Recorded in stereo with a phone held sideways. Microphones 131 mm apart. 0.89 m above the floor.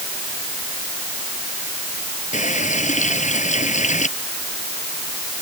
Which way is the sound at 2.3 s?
65° left (ahead or behind).